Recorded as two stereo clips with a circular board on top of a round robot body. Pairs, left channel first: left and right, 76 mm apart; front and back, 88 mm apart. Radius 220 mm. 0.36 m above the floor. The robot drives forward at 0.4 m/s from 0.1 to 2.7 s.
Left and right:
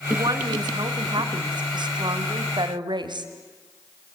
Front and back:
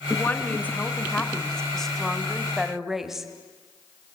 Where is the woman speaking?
65° right, 2.5 m; by 3.3 s 95° right, 2 m.